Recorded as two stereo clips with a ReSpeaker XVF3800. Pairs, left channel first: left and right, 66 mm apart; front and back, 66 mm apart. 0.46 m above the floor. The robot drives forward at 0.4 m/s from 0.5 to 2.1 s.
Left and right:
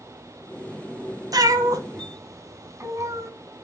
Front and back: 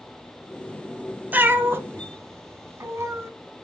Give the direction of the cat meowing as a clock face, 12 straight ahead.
4 o'clock.